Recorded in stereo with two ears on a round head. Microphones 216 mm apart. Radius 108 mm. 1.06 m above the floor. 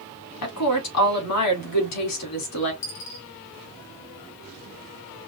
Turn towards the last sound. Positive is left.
turn(degrees=55)  # may be behind; listen again after turning